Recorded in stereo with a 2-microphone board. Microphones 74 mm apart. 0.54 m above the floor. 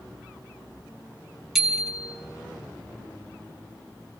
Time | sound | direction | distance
1.6 | a bicycle bell | 5° right (ahead or behind) | 4 m